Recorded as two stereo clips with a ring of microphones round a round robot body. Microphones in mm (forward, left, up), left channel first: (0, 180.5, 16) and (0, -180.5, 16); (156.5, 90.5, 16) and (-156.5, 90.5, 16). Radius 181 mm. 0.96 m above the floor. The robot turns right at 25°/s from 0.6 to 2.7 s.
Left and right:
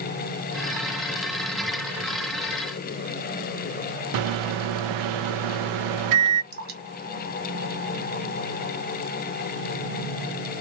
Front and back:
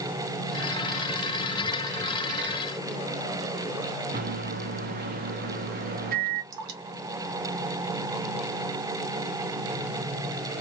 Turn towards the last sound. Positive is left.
turn(degrees=-150)